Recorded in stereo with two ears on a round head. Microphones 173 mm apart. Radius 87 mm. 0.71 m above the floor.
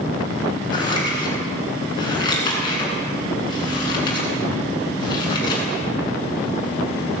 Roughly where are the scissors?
Left.